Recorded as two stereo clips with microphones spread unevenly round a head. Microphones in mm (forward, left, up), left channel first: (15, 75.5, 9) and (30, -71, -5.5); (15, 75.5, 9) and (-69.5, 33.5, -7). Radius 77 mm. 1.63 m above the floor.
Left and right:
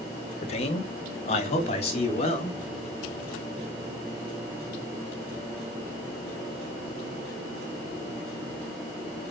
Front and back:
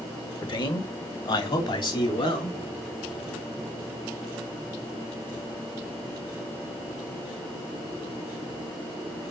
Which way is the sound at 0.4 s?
55° left.